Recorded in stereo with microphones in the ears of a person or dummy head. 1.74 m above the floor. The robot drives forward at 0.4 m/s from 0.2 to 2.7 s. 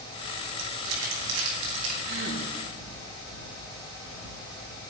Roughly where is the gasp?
Right.